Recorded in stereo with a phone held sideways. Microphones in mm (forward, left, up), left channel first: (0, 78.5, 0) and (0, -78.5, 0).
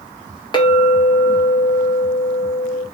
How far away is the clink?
About 1.2 m.